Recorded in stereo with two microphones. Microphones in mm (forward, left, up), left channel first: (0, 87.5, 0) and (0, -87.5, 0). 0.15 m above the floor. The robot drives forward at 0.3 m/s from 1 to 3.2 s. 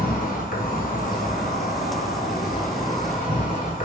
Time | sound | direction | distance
0.0 | an insect | 60° left (ahead or behind) | 0.9 m